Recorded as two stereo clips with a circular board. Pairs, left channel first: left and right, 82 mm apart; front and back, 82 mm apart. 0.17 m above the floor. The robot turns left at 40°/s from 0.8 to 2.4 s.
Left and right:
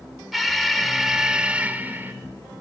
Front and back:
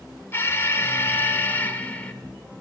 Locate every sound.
0.3 s an alarm: straight ahead, 1.0 m; by 2.1 s 55° right, 1.0 m